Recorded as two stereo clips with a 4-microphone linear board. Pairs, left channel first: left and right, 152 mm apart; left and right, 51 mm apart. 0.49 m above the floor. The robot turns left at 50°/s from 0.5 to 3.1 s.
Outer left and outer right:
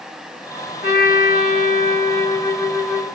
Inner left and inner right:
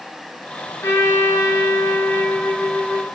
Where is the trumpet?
100° left, 1.1 m; by 3.1 s 10° right, 1.1 m.